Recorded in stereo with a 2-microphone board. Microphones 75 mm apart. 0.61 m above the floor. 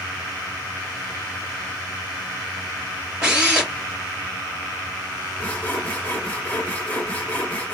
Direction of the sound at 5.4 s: 20° left (ahead or behind).